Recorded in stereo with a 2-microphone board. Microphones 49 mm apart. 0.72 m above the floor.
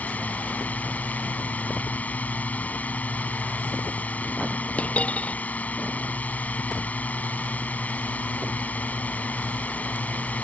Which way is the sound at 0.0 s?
30° left (ahead or behind).